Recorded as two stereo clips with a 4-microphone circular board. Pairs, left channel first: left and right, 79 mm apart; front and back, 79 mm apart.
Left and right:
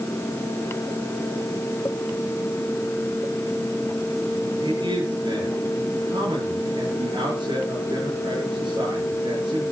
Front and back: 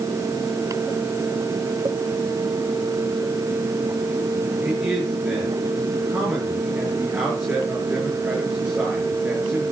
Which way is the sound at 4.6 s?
105° right.